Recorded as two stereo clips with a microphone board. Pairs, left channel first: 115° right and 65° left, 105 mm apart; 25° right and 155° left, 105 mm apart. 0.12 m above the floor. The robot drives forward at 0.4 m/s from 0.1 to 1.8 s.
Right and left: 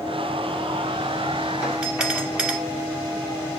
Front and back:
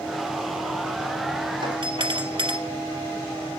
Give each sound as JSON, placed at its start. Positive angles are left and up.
{"t": 1.6, "sound": "a doorbell", "azimuth_deg": 145, "distance_m": 3.0}